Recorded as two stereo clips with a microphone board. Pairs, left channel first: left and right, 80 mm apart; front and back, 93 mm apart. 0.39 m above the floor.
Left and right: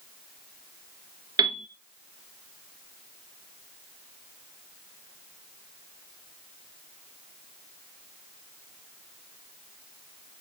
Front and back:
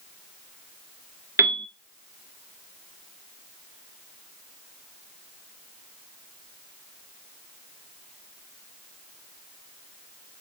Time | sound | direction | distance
1.4 | a piano | 120° right | 0.9 m